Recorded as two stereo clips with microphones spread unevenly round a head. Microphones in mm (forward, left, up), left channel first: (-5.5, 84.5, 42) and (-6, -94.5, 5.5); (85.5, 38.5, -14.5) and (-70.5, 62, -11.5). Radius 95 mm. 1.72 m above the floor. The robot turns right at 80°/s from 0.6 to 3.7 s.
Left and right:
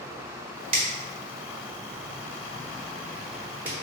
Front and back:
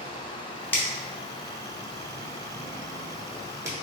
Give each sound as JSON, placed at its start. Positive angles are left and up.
{"t": 0.7, "sound": "a finger snap", "azimuth_deg": -65, "distance_m": 0.8}